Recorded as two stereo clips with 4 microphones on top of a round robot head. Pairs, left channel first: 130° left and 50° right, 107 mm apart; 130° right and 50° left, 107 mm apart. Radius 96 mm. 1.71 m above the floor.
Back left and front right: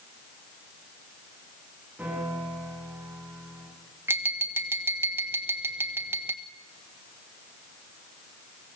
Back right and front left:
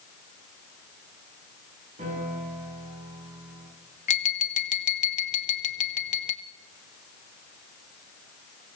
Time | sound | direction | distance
2.0 | a piano | 25° left | 6.5 m
4.1 | tapping | 120° right | 0.8 m